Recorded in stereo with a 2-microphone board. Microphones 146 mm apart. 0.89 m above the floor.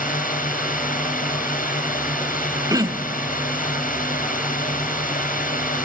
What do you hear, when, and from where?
0.0 s a drone: 70° left (ahead or behind)
2.7 s throat clearing: 25° right (ahead or behind)